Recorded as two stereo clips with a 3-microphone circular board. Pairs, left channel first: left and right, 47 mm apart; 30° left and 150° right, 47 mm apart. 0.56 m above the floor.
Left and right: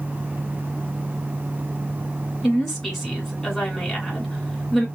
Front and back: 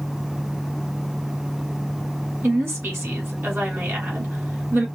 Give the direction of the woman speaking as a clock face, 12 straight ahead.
6 o'clock.